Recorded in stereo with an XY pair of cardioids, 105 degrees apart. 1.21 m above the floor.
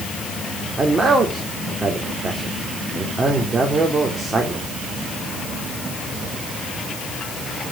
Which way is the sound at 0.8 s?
30° right.